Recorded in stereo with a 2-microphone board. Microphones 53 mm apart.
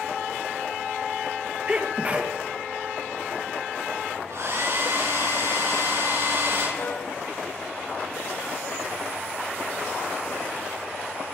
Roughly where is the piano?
Left.